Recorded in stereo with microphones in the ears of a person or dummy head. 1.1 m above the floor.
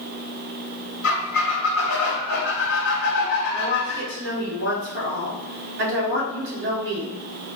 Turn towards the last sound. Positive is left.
turn(degrees=-55)  # may be behind; listen again after turning